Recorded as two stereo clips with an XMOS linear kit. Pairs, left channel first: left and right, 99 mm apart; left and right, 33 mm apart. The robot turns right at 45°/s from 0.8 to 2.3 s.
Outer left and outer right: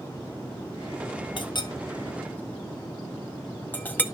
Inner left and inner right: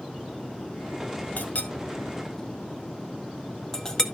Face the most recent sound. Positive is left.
turn(degrees=20)  # may be behind; listen again after turning